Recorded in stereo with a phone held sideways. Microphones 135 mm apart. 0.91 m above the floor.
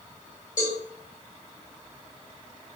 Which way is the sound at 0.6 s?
80° left.